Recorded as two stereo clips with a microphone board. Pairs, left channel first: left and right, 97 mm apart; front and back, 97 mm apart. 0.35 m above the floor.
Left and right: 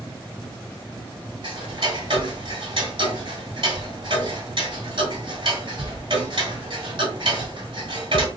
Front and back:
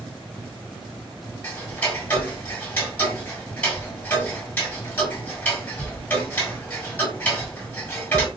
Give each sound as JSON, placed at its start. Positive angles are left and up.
{"t": 1.4, "sound": "ticking", "azimuth_deg": -65, "distance_m": 1.5}